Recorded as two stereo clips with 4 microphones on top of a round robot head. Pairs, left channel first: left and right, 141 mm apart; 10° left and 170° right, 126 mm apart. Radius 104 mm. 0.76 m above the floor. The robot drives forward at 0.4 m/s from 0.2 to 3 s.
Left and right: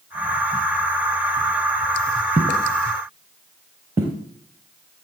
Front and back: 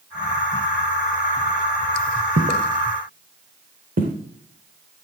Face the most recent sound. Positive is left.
turn(degrees=-170)